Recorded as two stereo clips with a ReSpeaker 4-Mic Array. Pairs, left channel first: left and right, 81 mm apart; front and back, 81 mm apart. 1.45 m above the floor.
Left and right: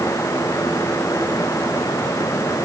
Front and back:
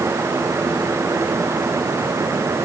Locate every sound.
Only background noise.